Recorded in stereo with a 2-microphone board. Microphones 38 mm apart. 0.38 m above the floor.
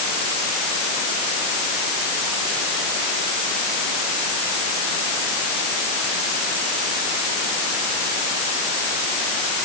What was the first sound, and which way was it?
Only background noise.